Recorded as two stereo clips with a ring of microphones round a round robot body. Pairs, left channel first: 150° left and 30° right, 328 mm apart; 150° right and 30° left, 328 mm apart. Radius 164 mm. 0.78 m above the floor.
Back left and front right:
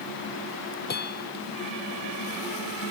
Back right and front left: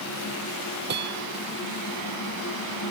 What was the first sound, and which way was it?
A bell, 90° left.